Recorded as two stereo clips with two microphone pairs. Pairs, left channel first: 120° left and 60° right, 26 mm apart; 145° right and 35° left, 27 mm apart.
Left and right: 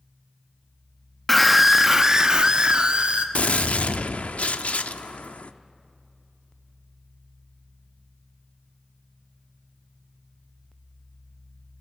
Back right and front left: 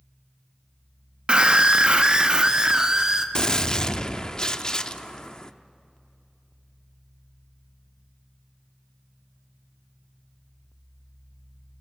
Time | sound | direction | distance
1.3 | a scream | 40° left | 0.8 m
3.4 | a gunshot | 150° left | 0.6 m